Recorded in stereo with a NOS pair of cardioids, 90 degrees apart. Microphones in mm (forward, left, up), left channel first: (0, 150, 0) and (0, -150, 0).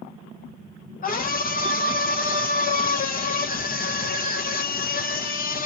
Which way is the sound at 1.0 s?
30° left.